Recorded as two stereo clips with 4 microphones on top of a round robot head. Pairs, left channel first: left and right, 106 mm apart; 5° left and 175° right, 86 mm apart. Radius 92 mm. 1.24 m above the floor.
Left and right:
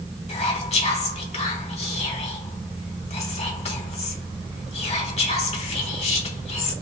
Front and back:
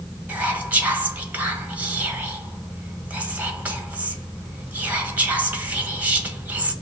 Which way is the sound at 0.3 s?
115° left.